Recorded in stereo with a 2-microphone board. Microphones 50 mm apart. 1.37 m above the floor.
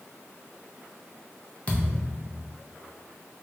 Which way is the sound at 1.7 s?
25° left (ahead or behind).